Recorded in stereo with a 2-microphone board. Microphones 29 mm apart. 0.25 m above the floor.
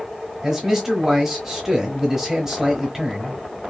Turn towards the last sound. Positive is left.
turn(degrees=-15)  # may be behind; listen again after turning